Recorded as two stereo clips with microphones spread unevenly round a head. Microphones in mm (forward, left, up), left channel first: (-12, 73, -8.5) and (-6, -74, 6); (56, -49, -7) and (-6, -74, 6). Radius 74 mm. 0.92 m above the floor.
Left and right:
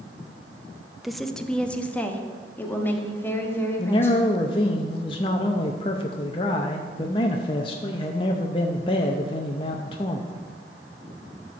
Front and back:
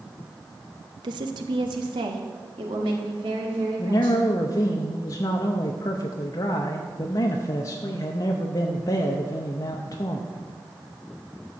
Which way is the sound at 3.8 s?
40° left.